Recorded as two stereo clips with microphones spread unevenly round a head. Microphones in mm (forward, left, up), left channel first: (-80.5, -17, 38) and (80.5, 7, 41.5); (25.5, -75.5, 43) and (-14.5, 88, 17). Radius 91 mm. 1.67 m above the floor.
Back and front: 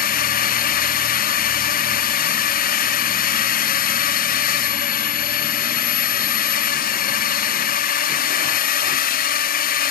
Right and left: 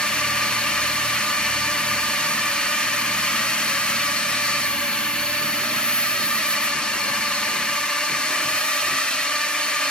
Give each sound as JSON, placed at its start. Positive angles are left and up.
{"t": 0.0, "sound": "a drone", "azimuth_deg": -165}